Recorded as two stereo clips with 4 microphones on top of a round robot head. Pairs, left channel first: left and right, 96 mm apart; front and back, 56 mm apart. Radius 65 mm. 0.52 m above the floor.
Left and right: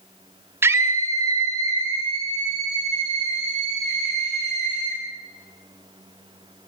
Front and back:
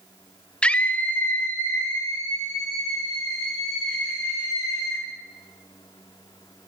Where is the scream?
50° right, 1.1 m; by 5.0 s 40° right, 5 m.